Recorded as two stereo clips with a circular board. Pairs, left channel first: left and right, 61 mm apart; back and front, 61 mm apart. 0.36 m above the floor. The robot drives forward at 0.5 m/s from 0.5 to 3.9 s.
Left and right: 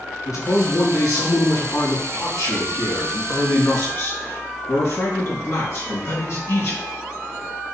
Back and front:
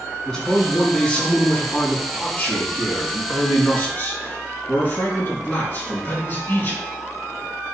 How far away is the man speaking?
About 3.5 m.